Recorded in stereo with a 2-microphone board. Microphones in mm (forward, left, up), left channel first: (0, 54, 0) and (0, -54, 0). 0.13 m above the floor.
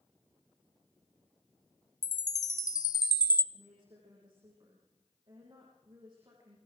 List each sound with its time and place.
2.0 s a chime: 40° left (ahead or behind), 0.6 m
3.5 s a woman speaking: 45° right (ahead or behind), 6 m